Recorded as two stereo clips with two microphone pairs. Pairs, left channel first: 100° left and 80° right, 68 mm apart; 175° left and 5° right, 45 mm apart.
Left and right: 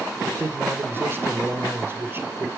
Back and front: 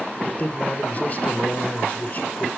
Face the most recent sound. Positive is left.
turn(degrees=-125)